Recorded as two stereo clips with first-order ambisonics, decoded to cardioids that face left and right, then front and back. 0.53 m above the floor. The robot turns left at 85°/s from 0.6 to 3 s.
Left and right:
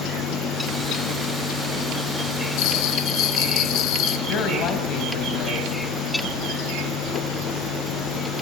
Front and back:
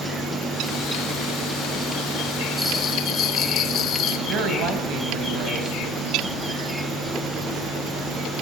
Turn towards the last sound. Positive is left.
turn(degrees=135)